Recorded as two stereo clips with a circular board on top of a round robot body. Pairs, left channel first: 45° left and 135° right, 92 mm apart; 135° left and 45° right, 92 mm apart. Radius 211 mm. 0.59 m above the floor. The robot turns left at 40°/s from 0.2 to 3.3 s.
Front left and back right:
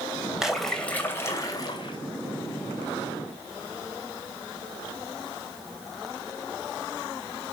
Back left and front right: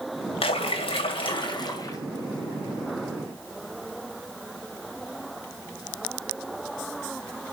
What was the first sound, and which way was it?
A splash, 140° left.